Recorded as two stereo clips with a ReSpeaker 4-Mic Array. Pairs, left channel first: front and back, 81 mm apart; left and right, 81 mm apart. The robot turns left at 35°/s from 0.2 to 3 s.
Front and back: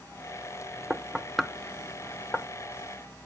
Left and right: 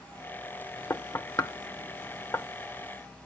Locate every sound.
0.9 s knocking: 105° left, 0.6 m; by 2.5 s 50° left, 0.6 m